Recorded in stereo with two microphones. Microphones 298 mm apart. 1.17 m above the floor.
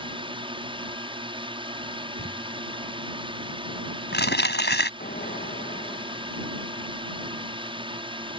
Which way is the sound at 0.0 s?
15° right (ahead or behind).